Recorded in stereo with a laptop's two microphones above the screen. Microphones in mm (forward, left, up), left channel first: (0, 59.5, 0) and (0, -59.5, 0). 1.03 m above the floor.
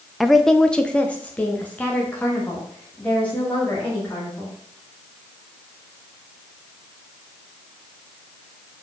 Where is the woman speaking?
Centre (ahead or behind), 0.5 m; by 4.5 s 15° left (ahead or behind), 2.5 m.